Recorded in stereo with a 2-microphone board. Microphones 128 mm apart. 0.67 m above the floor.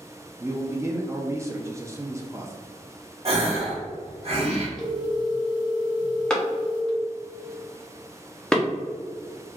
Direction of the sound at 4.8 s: 30° left (ahead or behind).